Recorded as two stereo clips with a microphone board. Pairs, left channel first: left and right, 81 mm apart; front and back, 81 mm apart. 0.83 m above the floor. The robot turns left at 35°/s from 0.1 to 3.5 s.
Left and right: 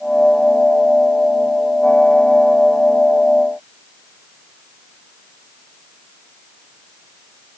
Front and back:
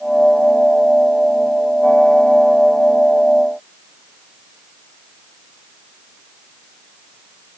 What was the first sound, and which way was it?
Only background noise.